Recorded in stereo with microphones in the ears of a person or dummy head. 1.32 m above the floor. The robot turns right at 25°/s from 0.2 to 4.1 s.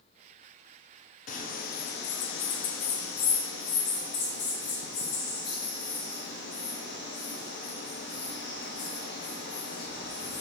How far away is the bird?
About 0.7 m.